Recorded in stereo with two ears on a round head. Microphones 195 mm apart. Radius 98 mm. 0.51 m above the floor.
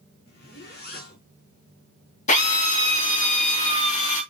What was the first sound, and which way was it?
A zipper, 45° left (ahead or behind).